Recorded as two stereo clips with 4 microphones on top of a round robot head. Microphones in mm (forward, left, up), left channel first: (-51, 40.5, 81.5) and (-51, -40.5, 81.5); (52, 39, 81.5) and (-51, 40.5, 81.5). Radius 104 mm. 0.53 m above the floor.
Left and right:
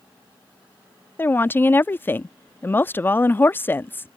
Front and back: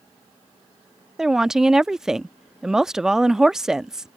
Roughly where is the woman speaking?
Left.